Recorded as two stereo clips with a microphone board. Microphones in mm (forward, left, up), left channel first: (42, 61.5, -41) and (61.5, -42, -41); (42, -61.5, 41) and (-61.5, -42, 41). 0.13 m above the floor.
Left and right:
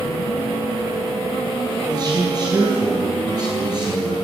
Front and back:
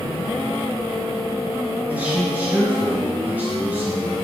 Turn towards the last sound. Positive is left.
turn(degrees=-120)